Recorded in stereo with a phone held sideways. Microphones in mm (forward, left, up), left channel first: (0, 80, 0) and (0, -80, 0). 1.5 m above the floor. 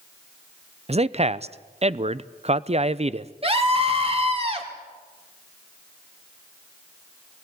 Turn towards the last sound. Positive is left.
turn(degrees=-40)  # may be behind; listen again after turning